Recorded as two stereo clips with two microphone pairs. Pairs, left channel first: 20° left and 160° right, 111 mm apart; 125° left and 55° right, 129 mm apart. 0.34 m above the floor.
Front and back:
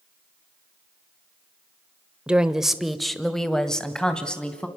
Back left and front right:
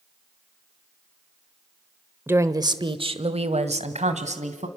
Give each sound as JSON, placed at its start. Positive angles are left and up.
{"t": 2.3, "sound": "a woman speaking", "azimuth_deg": -95, "distance_m": 0.9}